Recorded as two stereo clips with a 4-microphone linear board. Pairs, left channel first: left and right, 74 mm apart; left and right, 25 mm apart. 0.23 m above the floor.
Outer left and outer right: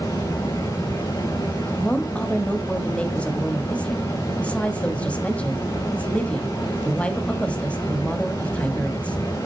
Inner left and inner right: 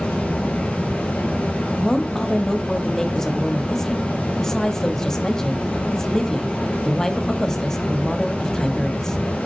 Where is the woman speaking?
15° left (ahead or behind), 1.1 m.